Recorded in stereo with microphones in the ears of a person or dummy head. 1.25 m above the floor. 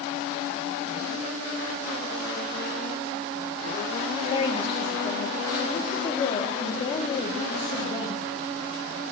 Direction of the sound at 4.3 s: 25° left (ahead or behind).